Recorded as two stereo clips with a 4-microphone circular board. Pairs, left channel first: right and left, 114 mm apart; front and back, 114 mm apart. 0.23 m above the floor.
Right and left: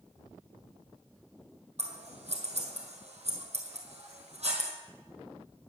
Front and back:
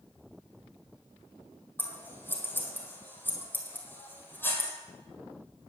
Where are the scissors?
70° left, 1.7 m.